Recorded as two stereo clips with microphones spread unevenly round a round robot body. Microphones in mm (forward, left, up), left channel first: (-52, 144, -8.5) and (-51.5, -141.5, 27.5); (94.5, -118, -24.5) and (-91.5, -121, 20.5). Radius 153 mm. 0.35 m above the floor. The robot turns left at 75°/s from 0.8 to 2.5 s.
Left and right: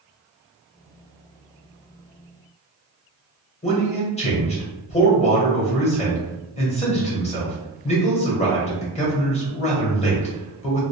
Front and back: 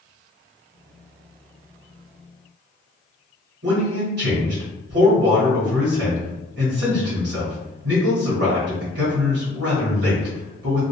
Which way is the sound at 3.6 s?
145° left.